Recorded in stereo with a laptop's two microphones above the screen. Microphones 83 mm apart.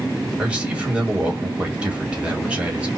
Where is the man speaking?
15° right (ahead or behind), 1.5 m.